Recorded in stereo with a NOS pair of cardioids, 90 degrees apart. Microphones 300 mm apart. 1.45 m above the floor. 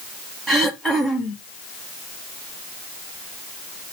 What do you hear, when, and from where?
0.5 s throat clearing: straight ahead, 1.2 m